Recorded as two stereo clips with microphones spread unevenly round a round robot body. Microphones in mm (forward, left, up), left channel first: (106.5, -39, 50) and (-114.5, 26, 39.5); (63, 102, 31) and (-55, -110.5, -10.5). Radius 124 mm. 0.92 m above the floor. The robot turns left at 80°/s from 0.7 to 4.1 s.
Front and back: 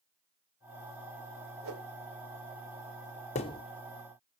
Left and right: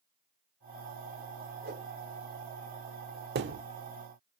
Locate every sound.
1.6 s a whoosh: 160° right, 2.5 m; by 1.9 s straight behind, 2.5 m
3.4 s a thud: 70° right, 0.7 m; by 3.6 s 90° right, 0.7 m